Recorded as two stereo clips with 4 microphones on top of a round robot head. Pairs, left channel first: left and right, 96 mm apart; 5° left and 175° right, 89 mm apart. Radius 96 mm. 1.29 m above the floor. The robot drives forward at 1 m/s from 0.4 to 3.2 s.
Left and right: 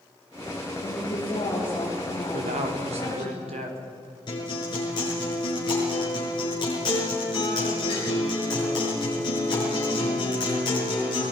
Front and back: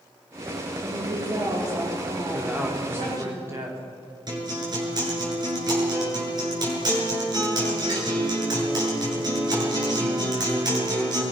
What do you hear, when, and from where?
0.8 s a woman speaking: 130° left, 4 m; by 3.3 s 150° left, 5.5 m
2.3 s a man speaking: 90° right, 3 m; by 3.8 s 110° right, 3 m
4.3 s a guitar: 140° left, 6.5 m